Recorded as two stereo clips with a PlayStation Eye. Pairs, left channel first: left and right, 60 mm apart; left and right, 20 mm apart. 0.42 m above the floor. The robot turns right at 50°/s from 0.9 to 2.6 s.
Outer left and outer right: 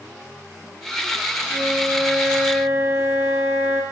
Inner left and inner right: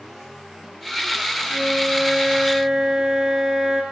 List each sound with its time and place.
1.5 s a flute: 135° left, 9.5 m; by 3.8 s 170° right, 9.5 m